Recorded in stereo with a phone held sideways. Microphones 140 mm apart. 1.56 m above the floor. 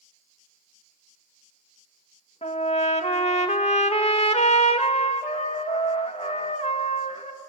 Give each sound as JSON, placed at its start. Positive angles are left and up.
{"t": 2.4, "sound": "a trumpet", "side_deg": 50, "distance_m": 1.8}